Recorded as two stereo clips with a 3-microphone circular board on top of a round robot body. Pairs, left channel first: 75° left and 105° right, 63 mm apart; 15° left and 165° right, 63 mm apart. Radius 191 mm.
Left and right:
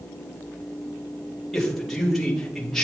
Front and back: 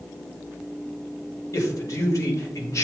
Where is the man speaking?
10° right, 2.5 m.